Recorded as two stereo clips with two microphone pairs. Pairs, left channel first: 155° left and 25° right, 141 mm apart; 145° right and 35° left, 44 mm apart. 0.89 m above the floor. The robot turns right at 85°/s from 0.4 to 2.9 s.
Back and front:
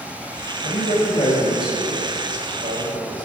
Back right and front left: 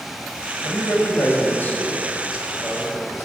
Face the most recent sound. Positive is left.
turn(degrees=0)